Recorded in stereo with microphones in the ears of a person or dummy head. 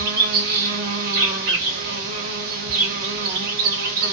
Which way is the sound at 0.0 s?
55° right (ahead or behind).